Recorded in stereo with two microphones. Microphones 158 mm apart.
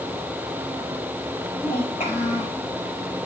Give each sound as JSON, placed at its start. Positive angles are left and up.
{"t": 1.6, "sound": "a child speaking", "side_deg": 50, "distance_m": 6.0}